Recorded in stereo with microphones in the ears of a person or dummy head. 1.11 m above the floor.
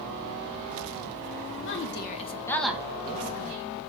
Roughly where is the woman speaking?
Left.